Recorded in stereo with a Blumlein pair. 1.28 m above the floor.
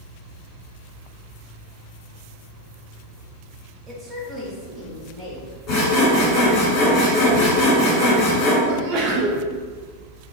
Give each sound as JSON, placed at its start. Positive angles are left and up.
{"t": 3.9, "sound": "a woman speaking", "azimuth_deg": -15, "distance_m": 1.1}
{"t": 5.7, "sound": "sawing", "azimuth_deg": 30, "distance_m": 1.7}
{"t": 8.7, "sound": "a sneeze", "azimuth_deg": -35, "distance_m": 0.7}